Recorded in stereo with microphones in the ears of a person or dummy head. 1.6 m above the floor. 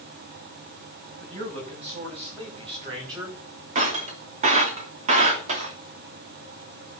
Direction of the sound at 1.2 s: 40° right (ahead or behind).